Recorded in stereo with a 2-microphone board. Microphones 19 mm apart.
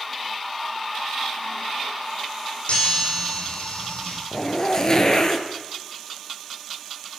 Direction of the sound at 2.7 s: 75° left (ahead or behind).